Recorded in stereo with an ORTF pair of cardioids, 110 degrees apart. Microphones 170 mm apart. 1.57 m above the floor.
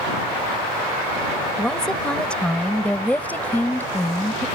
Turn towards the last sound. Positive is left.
turn(degrees=15)